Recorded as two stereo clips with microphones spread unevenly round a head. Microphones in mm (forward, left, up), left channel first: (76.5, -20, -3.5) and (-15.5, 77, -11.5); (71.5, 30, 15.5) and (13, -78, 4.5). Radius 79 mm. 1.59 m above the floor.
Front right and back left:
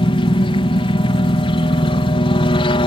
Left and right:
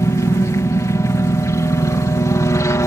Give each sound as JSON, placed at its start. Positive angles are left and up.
{"t": 0.0, "sound": "a helicopter", "azimuth_deg": 0}